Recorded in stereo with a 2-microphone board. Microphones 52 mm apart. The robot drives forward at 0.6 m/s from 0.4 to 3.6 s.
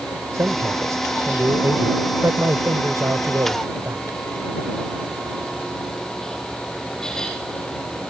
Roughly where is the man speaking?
Right.